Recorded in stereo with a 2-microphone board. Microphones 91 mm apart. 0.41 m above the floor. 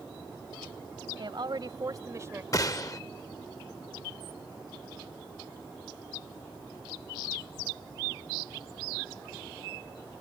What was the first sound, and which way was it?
A woman speaking, 60° right (ahead or behind).